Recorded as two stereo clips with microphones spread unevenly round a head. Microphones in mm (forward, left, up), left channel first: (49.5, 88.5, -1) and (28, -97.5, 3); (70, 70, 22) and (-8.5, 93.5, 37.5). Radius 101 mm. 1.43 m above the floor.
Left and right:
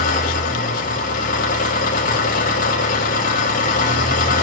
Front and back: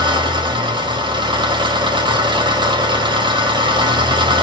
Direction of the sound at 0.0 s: 140° left.